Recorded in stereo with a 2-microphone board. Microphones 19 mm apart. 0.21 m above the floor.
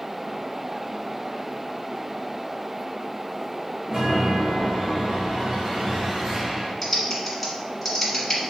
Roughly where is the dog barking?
I don't hear a dog barking.